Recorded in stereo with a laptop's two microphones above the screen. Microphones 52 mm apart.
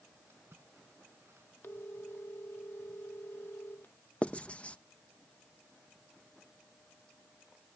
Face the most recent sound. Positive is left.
turn(degrees=25)  # may be behind; listen again after turning